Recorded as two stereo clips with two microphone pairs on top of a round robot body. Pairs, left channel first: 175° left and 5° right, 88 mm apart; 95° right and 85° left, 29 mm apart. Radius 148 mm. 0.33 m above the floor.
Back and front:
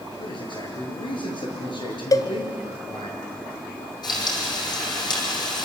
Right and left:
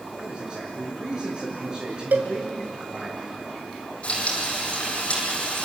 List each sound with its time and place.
0.2 s a man speaking: 150° left, 8 m
2.1 s a cowbell: 120° left, 1.0 m
4.0 s frying: 145° right, 5 m